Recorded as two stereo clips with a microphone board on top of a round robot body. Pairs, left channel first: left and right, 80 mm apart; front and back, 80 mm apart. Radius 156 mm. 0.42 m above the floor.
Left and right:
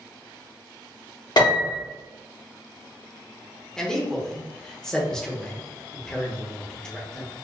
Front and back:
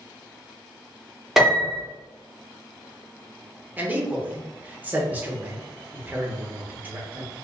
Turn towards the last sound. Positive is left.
turn(degrees=160)